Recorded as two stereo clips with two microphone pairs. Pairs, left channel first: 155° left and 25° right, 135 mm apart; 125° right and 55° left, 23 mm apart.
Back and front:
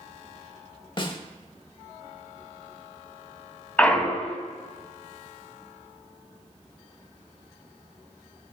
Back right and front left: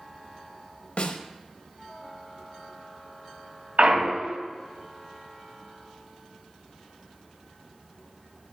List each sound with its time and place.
1.0 s a snare drum: 150° right, 0.5 m
3.8 s a clunk: 75° left, 0.5 m